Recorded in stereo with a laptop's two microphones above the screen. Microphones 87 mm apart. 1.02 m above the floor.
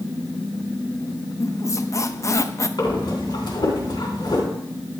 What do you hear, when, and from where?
1.4 s a squeak: 35° left (ahead or behind), 0.5 m
2.8 s breathing: 50° left (ahead or behind), 3 m